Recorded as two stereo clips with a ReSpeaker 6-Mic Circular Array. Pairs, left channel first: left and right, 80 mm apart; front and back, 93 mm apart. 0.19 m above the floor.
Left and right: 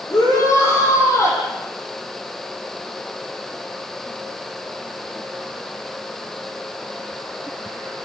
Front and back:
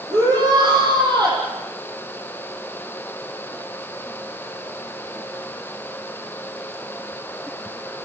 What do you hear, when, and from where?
0.1 s a shout: 140° left, 8.5 m